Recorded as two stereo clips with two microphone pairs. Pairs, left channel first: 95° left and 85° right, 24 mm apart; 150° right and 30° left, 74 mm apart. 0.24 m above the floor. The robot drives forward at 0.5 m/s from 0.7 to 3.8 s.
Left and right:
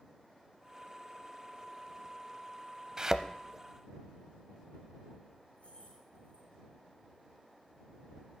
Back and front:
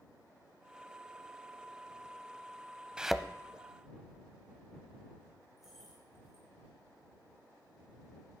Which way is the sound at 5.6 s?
115° left.